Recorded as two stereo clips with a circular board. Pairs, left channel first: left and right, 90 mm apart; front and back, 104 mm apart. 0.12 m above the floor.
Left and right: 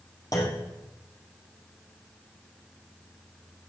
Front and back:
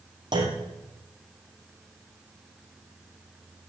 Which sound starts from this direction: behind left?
A clunk, at 0.3 s.